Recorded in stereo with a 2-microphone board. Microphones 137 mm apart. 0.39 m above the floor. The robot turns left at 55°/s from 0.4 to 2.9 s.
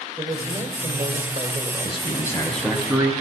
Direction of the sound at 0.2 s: 65° right.